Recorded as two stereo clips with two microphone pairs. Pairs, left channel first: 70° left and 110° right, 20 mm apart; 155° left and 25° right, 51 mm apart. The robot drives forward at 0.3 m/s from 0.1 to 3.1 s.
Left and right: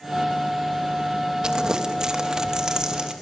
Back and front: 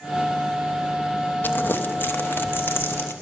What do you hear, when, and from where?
1.4 s crumpling: 160° right, 1.1 m; by 3.1 s 165° right, 1.6 m